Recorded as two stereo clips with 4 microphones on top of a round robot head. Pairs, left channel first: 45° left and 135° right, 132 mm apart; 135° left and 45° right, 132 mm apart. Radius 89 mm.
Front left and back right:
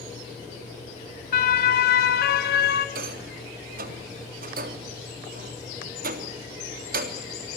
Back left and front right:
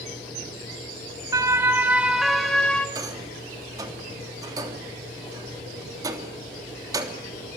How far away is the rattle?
About 3 m.